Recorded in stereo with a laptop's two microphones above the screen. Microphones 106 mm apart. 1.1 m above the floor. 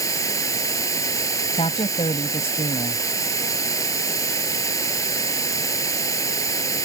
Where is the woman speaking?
70° left (ahead or behind).